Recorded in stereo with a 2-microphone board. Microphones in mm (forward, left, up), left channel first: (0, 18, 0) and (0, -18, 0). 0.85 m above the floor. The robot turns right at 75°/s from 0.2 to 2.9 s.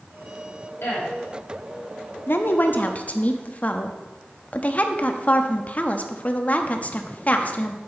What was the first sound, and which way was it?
A woman speaking, 80° left.